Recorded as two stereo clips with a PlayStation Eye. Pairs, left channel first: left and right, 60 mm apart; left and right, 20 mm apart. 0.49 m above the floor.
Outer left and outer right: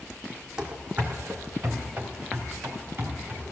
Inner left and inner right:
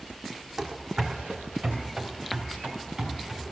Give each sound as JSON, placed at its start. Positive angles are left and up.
{"t": 0.6, "sound": "running footsteps", "side_deg": -15, "distance_m": 1.6}